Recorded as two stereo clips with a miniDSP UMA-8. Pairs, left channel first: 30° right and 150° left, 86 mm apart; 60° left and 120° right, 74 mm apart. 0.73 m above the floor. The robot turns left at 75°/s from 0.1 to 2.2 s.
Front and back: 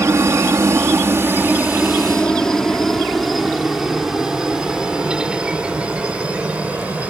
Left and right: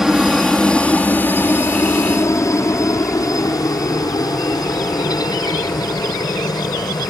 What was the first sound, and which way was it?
A helicopter, 160° left.